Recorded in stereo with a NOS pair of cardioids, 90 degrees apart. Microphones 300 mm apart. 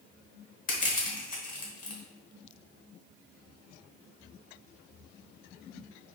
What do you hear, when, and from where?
0.7 s crushing: 30° left, 1.3 m